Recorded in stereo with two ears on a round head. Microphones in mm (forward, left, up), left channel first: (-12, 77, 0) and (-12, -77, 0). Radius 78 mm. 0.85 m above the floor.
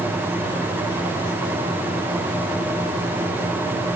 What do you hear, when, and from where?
Only background noise.